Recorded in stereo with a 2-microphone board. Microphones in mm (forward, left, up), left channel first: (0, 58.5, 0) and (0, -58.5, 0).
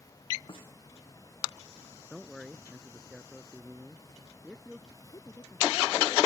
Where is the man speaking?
Centre (ahead or behind).